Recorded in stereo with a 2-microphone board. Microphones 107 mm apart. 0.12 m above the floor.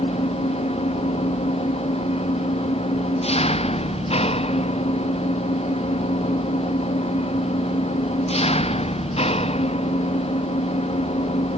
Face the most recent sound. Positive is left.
turn(degrees=70)  # may be behind; listen again after turning